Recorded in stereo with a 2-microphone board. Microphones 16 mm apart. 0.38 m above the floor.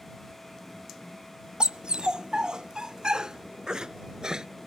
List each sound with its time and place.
1.6 s a dog barking: 80° right; by 4.5 s 50° right (ahead or behind)